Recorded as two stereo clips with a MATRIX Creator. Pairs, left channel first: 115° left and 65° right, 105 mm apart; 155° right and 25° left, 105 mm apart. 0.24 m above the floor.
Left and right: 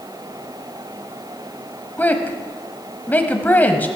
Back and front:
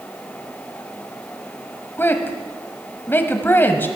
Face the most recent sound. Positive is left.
turn(degrees=165)